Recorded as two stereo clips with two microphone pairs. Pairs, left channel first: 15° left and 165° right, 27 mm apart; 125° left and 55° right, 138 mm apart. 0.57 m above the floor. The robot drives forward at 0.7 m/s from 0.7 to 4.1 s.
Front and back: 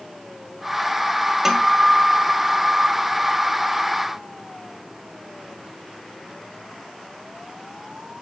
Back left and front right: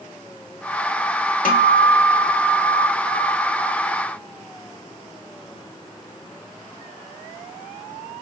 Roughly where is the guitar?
Behind left.